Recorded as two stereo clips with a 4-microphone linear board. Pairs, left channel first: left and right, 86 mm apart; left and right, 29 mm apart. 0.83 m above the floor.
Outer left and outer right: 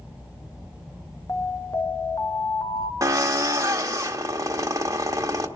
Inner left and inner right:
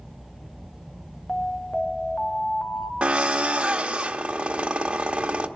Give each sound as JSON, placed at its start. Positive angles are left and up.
{"t": 1.3, "sound": "an alarm", "side_deg": 40, "distance_m": 1.1}
{"t": 3.0, "sound": "a drill", "side_deg": -40, "distance_m": 1.1}